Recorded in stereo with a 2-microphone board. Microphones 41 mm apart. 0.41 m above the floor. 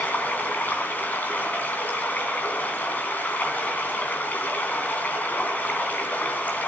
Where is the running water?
40° left (ahead or behind), 3 m.